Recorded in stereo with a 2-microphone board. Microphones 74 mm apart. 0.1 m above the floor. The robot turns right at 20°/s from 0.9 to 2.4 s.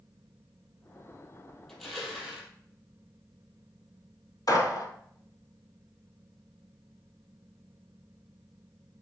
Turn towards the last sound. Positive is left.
turn(degrees=55)  # may be behind; listen again after turning